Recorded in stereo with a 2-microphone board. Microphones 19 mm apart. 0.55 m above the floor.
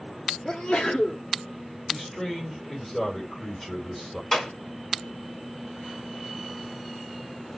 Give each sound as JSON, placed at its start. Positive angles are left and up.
{"t": 0.5, "sound": "a sneeze", "side_deg": 55, "distance_m": 1.1}
{"t": 1.9, "sound": "a man speaking", "side_deg": 25, "distance_m": 2.0}
{"t": 4.3, "sound": "a clap", "side_deg": 35, "distance_m": 3.5}